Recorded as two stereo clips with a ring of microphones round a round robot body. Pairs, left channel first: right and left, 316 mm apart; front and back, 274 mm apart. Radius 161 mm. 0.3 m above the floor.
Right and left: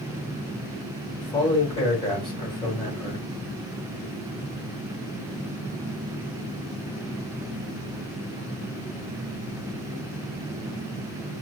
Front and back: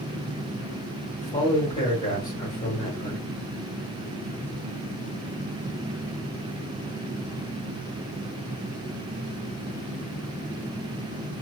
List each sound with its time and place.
1.2 s a man speaking: 45° right, 1.5 m